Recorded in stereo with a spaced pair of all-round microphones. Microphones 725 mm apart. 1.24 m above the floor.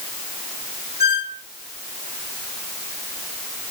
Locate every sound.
1.0 s a squeak: 65° left (ahead or behind), 1.8 m